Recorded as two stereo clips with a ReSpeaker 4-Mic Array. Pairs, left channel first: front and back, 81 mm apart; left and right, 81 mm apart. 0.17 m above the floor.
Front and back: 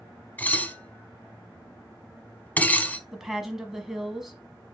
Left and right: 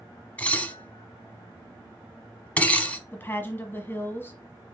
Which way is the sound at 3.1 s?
100° left.